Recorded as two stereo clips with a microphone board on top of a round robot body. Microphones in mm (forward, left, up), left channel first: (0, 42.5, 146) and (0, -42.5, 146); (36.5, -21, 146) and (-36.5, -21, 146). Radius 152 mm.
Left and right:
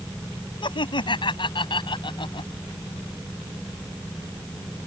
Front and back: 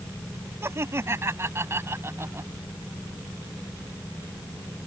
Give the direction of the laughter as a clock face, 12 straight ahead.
8 o'clock.